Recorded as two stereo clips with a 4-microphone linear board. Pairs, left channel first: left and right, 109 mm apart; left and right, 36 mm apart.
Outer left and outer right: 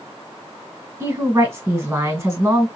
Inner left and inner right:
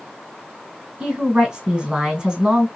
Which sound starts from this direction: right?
A woman speaking, at 1.0 s.